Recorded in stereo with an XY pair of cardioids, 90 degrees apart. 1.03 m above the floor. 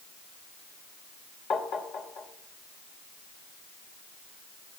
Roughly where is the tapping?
Ahead left.